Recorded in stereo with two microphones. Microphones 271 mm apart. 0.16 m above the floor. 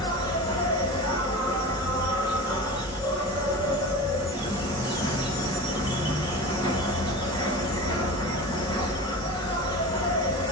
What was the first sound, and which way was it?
An insect, 15° left (ahead or behind).